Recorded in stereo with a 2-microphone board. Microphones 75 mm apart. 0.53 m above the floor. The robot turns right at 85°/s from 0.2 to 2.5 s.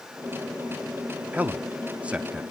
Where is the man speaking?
20° right (ahead or behind), 0.7 m; by 2.4 s 5° right (ahead or behind), 0.7 m.